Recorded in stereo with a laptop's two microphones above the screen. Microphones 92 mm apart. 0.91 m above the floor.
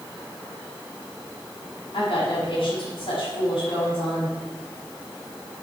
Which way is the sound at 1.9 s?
70° left (ahead or behind).